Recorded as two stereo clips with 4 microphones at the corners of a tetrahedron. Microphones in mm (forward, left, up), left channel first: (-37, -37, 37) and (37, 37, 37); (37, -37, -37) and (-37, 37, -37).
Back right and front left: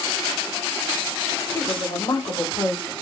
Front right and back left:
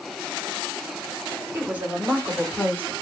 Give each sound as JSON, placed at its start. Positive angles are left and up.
{"t": 1.5, "sound": "a woman speaking", "azimuth_deg": -165, "distance_m": 1.3}